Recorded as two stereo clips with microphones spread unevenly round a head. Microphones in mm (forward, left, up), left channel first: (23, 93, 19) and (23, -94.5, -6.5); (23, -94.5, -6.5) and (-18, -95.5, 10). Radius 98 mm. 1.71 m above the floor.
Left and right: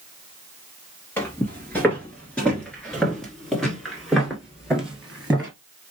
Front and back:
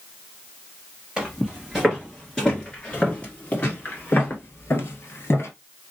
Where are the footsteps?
155° left, 2.0 m; by 5.5 s 5° left, 2 m.